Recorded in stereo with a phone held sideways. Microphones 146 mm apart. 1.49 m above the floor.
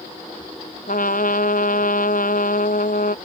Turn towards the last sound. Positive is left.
turn(degrees=70)  # may be behind; listen again after turning